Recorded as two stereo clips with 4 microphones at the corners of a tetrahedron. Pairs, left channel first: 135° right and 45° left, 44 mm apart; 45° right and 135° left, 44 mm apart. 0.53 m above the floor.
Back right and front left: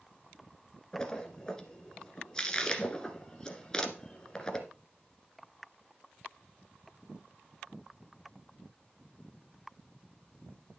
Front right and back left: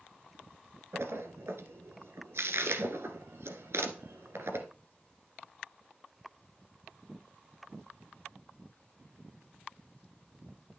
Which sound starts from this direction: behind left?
A splash, at 0.9 s.